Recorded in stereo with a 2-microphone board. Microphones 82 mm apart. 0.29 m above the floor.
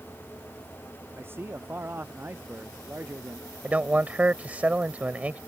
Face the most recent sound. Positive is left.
turn(degrees=-20)  # may be behind; listen again after turning